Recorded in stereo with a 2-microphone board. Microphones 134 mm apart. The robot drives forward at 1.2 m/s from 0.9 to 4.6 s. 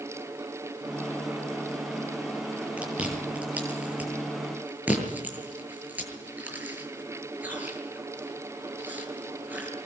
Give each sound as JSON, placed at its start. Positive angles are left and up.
{"t": 2.8, "sound": "chewing", "side_deg": -10, "distance_m": 10.0}